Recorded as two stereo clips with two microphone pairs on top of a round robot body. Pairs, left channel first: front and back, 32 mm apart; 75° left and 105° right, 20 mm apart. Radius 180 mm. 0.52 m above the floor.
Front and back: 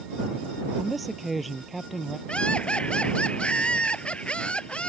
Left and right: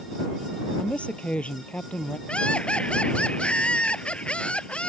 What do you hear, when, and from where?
0.8 s a woman speaking: 90° left
2.3 s laughter: 55° left